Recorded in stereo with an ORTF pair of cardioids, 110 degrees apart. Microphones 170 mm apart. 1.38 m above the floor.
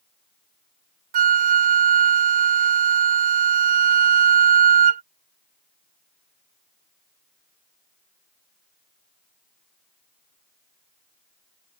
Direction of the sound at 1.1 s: 50° right.